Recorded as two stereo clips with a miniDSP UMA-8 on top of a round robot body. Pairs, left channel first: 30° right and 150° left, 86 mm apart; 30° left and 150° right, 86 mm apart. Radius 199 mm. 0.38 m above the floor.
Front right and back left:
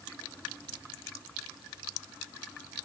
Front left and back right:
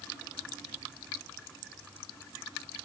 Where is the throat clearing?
I don't hear throat clearing.